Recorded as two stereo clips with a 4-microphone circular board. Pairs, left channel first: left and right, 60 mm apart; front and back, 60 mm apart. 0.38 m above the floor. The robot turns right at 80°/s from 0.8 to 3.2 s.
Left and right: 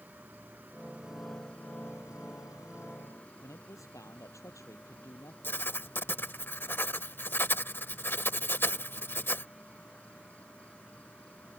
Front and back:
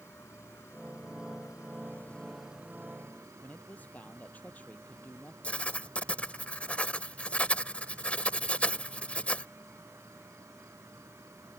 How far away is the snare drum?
No snare drum in this recording.